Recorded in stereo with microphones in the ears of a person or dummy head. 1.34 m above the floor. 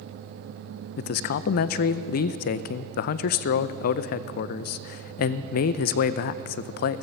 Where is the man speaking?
50° left (ahead or behind), 0.5 m.